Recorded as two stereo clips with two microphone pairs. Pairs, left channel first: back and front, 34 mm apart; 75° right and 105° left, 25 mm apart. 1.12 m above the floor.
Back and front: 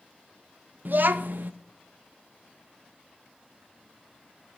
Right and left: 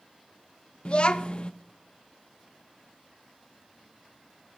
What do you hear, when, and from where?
0.8 s a child speaking: 30° right, 0.8 m